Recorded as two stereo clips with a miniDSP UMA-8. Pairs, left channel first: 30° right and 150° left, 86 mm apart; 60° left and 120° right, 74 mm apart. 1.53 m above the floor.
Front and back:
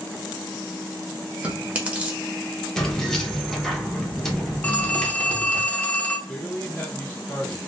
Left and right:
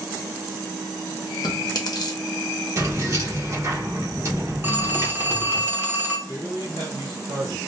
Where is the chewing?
80° left, 0.7 m.